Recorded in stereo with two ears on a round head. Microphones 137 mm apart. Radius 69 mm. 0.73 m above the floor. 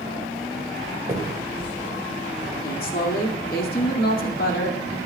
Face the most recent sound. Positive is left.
turn(degrees=65)  # may be behind; listen again after turning